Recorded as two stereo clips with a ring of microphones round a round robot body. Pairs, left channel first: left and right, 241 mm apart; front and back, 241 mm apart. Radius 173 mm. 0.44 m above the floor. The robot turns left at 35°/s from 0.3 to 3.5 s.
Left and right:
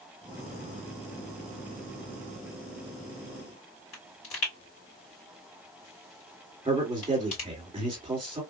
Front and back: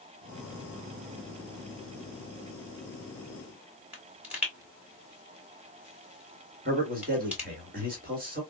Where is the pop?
100° left, 2.5 m.